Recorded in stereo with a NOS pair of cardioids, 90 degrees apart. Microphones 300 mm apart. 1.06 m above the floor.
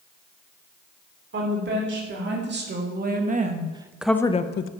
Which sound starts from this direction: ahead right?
A woman speaking, at 1.3 s.